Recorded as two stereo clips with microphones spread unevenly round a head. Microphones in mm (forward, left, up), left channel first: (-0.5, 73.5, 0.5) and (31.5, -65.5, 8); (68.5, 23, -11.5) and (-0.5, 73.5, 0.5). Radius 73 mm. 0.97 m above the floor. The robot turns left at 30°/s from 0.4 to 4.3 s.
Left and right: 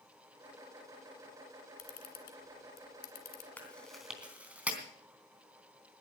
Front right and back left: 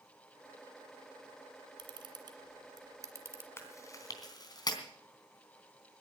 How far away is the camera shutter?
About 2 m.